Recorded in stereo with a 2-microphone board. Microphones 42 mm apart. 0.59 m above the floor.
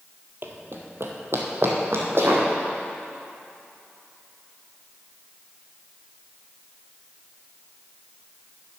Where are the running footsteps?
55° right (ahead or behind), 1.0 m; by 2.5 s 60° right (ahead or behind), 2.0 m.